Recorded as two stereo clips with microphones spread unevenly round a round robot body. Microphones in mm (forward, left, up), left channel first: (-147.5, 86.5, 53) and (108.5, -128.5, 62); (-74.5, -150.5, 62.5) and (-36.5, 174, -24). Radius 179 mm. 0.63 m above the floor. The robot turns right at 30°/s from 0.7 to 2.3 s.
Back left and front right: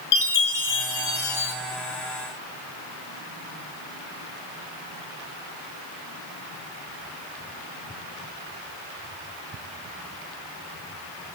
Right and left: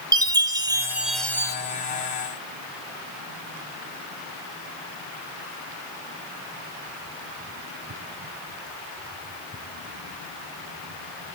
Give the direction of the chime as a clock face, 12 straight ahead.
7 o'clock.